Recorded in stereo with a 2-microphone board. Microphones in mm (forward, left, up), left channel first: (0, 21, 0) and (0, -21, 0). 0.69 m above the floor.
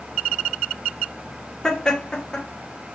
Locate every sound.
1.6 s laughter: 20° left (ahead or behind), 1.0 m